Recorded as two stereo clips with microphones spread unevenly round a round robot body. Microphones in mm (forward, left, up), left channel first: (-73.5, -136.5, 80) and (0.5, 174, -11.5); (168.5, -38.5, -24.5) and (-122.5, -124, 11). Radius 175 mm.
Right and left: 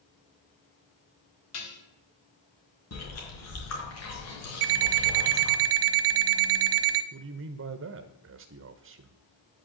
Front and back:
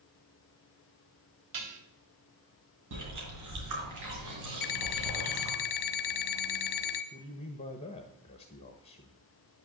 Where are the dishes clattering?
145° right, 2.5 m.